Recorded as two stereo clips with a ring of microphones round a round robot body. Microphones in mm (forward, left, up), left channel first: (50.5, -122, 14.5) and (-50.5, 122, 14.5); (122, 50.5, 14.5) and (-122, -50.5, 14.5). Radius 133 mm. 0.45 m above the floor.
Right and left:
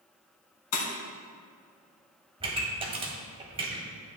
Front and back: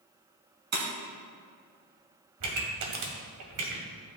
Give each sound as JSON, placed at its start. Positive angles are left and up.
{"t": 0.7, "sound": "breaking glass", "azimuth_deg": -105, "distance_m": 2.5}
{"t": 2.4, "sound": "a pop", "azimuth_deg": 180, "distance_m": 1.7}